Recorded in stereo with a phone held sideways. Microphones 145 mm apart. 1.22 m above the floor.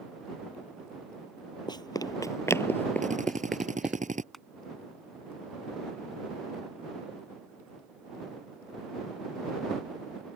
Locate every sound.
1.7 s running footsteps: 30° left (ahead or behind); by 4.0 s 10° right (ahead or behind)
3.0 s a drill: 60° right (ahead or behind)
4.3 s crushing: centre (ahead or behind)